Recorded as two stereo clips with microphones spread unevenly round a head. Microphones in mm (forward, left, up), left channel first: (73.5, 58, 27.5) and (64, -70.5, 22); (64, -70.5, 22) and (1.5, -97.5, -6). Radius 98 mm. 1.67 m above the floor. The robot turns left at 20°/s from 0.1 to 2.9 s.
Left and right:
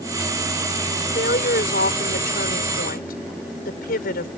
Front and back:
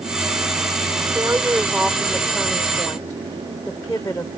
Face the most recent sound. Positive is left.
turn(degrees=95)